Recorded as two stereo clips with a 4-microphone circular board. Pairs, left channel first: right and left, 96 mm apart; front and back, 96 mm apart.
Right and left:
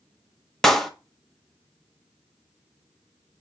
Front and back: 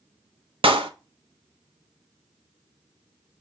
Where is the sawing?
I don't hear sawing.